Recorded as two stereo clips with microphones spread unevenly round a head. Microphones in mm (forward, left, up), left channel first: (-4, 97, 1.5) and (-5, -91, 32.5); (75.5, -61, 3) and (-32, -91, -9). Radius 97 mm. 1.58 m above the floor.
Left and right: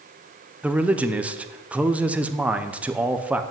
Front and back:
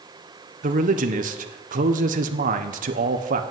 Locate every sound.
0.6 s a man speaking: 175° right, 0.9 m